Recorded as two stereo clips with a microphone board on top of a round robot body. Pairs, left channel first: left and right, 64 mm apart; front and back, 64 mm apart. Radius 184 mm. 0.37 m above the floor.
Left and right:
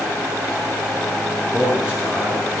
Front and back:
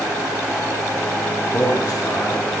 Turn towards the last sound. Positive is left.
turn(degrees=-20)